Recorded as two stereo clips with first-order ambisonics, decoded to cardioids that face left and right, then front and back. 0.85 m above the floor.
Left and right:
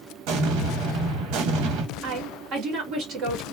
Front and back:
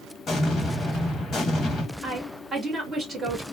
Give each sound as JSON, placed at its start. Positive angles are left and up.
{"t": 0.3, "sound": "an explosion", "azimuth_deg": -65, "distance_m": 1.0}
{"t": 2.0, "sound": "a woman speaking", "azimuth_deg": -110, "distance_m": 1.2}